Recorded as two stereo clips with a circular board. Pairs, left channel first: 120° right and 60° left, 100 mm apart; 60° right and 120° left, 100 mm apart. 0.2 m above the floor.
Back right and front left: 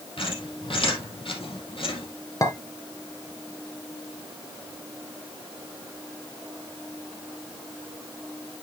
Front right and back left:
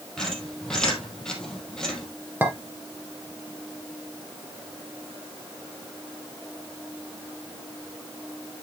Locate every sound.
0.2 s a squeak: 145° right, 3 m
2.4 s a clink: 170° right, 2 m